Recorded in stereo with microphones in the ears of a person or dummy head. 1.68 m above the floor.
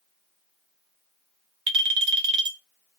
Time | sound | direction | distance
1.7 | a clink | 30° right (ahead or behind) | 0.6 m